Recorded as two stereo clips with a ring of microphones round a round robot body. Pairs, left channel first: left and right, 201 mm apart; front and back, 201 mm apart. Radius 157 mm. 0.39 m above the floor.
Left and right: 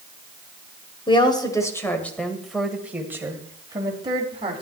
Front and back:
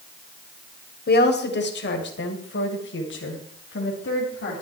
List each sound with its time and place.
1.1 s a woman speaking: 25° left, 2 m; by 4.6 s 30° right, 3 m